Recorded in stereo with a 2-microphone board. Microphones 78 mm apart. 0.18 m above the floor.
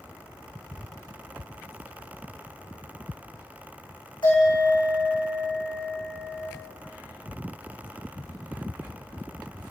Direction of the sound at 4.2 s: 80° left.